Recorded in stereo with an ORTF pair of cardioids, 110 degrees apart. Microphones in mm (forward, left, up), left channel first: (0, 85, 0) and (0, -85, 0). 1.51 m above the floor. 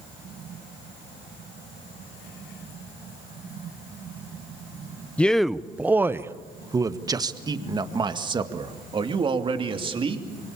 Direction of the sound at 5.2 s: 10° left.